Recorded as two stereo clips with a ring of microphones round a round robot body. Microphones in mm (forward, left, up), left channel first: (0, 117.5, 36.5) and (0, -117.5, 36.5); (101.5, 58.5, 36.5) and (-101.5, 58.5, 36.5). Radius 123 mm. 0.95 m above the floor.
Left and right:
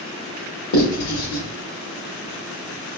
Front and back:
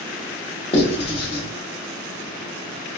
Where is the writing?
60° left, 1.2 m.